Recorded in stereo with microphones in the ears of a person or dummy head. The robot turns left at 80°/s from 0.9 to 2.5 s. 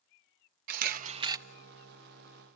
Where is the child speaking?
I don't hear a child speaking.